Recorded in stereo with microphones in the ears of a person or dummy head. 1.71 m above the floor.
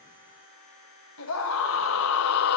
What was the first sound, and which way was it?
A scream, 85° left.